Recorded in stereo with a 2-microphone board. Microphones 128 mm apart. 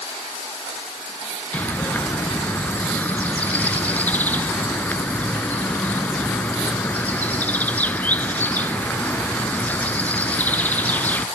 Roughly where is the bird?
Centre.